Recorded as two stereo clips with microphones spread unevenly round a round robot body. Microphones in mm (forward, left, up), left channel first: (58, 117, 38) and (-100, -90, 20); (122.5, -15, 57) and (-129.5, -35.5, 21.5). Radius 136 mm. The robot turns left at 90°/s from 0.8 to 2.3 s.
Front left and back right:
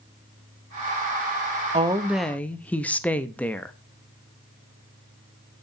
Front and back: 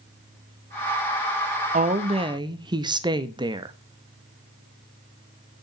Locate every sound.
1.7 s a woman speaking: 170° right, 0.6 m; by 3.7 s 140° left, 0.6 m